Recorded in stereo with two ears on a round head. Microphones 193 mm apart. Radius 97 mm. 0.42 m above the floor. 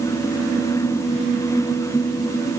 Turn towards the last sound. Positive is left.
No sound to turn to.